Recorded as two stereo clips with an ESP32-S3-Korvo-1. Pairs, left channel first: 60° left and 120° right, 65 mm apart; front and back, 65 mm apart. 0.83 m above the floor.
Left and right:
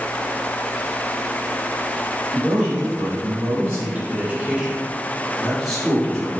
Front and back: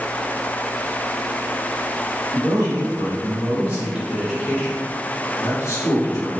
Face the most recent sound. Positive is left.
turn(degrees=-20)